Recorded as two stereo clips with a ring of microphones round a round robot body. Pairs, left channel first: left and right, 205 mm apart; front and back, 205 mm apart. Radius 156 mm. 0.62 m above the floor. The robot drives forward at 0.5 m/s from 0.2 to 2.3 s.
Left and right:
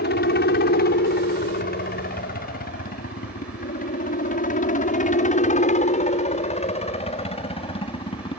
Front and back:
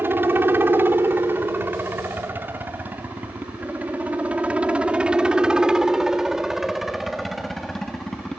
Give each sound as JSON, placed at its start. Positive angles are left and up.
{"t": 0.0, "sound": "a helicopter", "azimuth_deg": 105}